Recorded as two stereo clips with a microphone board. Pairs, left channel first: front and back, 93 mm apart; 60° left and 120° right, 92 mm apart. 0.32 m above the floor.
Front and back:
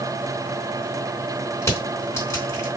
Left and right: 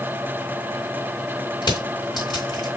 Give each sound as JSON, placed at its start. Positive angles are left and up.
{"t": 1.6, "sound": "crushing", "azimuth_deg": 50, "distance_m": 1.7}